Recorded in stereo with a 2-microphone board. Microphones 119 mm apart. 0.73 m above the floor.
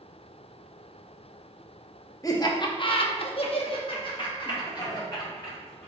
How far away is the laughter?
About 0.8 m.